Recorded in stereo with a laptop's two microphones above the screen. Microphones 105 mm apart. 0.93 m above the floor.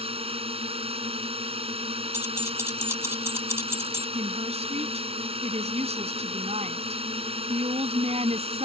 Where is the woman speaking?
85° right.